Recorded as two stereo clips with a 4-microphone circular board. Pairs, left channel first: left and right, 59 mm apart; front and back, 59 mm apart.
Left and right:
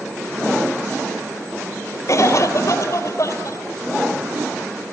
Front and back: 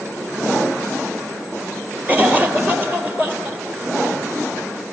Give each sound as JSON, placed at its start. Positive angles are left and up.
{"t": 2.1, "sound": "a cough", "azimuth_deg": 120, "distance_m": 3.5}